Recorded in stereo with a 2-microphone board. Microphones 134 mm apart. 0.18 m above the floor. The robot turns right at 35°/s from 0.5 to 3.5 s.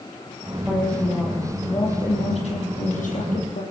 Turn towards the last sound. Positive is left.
turn(degrees=95)